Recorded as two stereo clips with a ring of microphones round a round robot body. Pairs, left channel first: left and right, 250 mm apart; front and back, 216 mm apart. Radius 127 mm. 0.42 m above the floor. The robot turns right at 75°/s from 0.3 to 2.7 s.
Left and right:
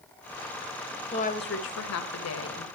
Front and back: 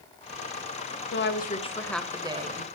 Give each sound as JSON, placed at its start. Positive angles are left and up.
{"t": 1.1, "sound": "a woman speaking", "azimuth_deg": 25, "distance_m": 2.0}